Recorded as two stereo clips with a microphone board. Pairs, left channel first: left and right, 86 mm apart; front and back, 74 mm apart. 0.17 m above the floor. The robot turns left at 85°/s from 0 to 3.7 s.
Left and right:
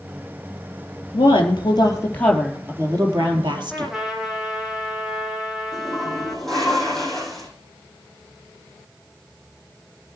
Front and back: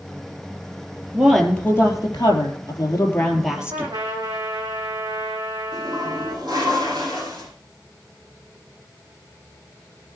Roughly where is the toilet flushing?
Behind.